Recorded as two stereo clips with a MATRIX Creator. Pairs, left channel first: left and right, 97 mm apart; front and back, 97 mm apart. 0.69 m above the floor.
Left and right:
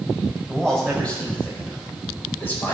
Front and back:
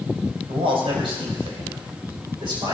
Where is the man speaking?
175° left, 4 m; by 2.7 s 155° left, 4 m.